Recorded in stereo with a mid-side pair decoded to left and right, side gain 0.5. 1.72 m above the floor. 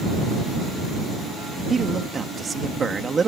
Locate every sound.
1.7 s a man speaking: 30° right